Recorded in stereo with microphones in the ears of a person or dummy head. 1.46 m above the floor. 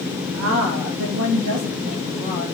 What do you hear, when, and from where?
0.3 s a woman speaking: 75° right (ahead or behind), 0.9 m; by 2.5 s 35° right (ahead or behind), 1.7 m